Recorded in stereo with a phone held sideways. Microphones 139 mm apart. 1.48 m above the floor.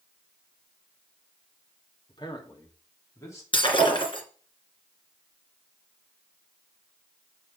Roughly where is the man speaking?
Left.